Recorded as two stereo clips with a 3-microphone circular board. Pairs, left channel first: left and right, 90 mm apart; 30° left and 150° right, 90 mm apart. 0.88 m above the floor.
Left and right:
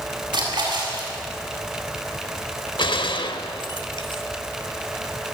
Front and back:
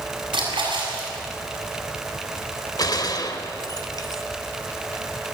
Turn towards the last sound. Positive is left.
turn(degrees=75)